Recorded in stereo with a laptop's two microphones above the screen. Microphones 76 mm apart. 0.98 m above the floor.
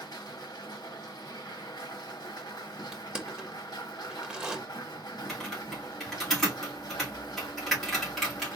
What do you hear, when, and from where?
0.0 s a machine running: 80° left, 1.2 m
2.9 s crushing: 15° right (ahead or behind), 0.9 m
5.3 s typing on a keyboard: 5° left (ahead or behind), 1.8 m